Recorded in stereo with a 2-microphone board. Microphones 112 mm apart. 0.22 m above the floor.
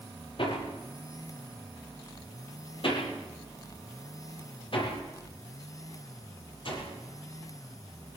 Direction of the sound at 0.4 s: 55° left (ahead or behind).